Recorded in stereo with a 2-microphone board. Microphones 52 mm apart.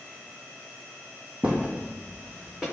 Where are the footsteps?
20° right (ahead or behind), 0.6 m; by 2.6 s 5° right (ahead or behind), 1.7 m.